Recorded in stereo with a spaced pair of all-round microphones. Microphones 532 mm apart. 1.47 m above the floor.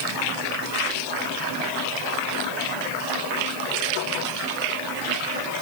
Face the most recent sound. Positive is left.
No sound to turn to.